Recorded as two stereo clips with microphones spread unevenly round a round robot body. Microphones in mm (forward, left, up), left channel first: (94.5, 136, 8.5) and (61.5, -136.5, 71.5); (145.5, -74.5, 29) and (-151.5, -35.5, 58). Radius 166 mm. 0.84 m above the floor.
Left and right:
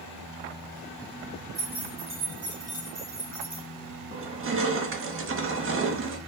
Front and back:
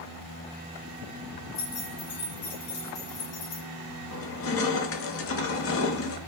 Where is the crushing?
45° right, 1.0 m.